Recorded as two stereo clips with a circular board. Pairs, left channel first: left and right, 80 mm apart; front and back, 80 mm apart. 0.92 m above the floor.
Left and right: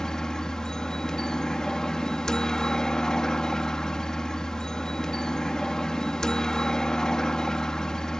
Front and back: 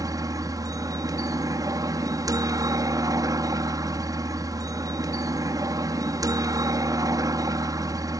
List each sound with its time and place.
0.0 s a helicopter: 170° left